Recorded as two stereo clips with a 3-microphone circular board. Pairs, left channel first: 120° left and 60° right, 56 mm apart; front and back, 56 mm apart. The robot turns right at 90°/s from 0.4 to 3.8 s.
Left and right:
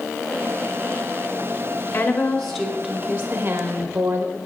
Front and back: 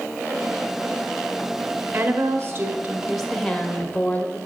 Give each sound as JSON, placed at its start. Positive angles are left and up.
{"t": 1.9, "sound": "a woman speaking", "azimuth_deg": 155, "distance_m": 0.9}